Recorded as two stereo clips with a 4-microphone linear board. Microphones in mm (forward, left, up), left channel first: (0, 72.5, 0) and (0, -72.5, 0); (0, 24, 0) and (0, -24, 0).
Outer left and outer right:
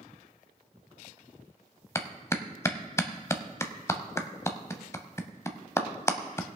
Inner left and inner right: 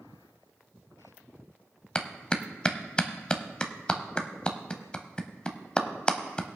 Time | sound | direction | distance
1.9 | a clap | 20° left (ahead or behind) | 0.8 m